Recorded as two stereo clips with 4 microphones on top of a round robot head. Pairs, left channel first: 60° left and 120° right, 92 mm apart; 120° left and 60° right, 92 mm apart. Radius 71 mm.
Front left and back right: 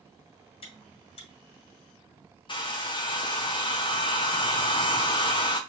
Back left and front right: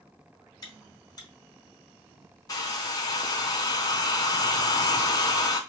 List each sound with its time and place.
0.6 s chewing: 75° left, 1.7 m
2.5 s a hair dryer: 80° left, 1.0 m